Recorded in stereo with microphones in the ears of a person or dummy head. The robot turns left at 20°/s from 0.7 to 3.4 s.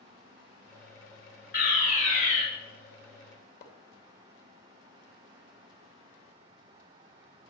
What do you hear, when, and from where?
1.5 s a fire alarm: 55° left (ahead or behind), 4 m; by 2.4 s 35° left (ahead or behind), 4 m
3.6 s a splash: 60° left (ahead or behind), 2.5 m